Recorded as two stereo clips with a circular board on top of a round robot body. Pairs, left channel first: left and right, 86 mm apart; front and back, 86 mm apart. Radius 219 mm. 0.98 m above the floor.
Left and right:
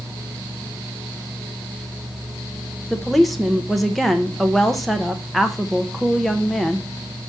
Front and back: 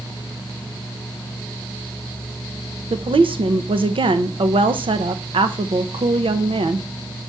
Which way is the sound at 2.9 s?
Straight behind.